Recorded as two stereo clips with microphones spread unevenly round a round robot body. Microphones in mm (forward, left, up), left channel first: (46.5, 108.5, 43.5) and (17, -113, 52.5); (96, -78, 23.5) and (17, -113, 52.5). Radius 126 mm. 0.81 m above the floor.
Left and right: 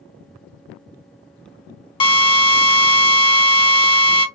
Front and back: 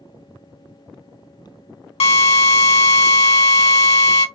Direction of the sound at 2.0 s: 15° left.